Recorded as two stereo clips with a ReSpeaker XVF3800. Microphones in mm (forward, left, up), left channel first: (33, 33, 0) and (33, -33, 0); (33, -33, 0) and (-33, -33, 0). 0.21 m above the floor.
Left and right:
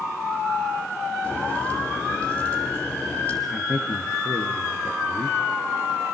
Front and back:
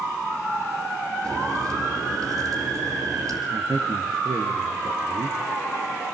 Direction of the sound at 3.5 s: 175° right.